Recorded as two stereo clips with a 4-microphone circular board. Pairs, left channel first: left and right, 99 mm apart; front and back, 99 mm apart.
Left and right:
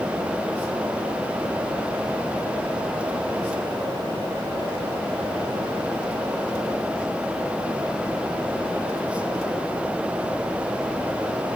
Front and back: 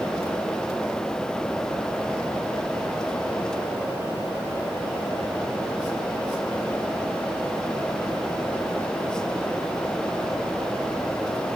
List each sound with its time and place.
Only background noise.